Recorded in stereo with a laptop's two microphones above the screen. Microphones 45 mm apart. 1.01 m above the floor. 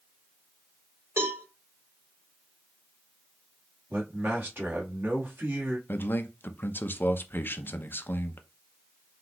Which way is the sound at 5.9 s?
50° left (ahead or behind).